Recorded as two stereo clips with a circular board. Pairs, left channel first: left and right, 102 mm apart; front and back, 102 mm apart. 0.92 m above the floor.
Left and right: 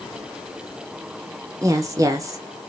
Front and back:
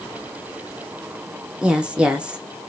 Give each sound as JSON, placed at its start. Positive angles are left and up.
{"t": 1.6, "sound": "a woman speaking", "azimuth_deg": -110, "distance_m": 0.7}